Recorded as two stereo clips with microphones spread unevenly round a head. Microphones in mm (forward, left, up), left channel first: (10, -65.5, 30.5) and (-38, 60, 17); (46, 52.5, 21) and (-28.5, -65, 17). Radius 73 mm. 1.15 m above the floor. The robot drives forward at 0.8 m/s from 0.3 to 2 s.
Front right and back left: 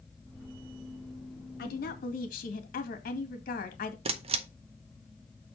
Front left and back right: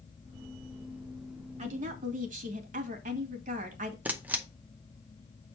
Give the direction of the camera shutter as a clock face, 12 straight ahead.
7 o'clock.